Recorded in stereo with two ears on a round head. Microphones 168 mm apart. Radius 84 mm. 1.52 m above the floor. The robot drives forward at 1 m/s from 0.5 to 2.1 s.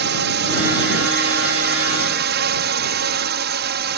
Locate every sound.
0.0 s a drone: 60° right (ahead or behind)